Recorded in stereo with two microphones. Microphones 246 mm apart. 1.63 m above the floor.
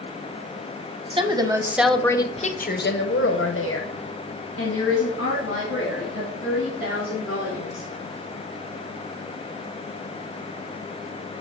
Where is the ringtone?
I don't hear a ringtone.